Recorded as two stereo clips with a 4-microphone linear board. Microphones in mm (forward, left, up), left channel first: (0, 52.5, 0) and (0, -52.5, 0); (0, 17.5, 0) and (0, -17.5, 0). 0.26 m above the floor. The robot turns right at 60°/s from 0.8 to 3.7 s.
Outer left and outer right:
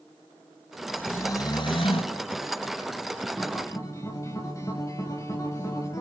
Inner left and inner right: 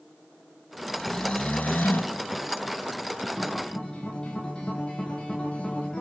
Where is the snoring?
10° left, 2 m; by 2.2 s 85° left, 2 m.